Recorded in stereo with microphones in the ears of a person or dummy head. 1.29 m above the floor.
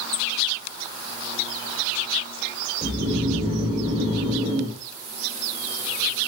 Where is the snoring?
40° right (ahead or behind), 2.5 m.